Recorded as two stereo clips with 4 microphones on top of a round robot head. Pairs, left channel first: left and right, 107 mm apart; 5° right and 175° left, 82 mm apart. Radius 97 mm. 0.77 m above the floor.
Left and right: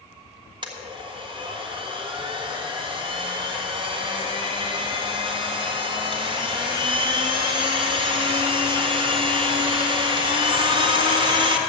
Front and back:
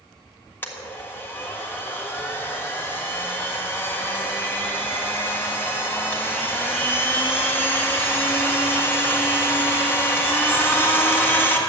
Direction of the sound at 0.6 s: 65° right.